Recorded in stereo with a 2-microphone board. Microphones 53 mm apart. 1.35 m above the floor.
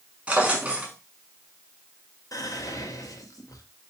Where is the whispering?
85° left, 0.9 m.